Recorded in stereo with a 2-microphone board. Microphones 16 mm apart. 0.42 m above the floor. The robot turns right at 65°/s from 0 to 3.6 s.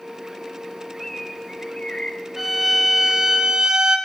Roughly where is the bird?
Ahead.